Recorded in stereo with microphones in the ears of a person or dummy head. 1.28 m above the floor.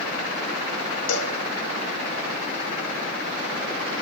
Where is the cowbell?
75° left (ahead or behind), 2.5 m.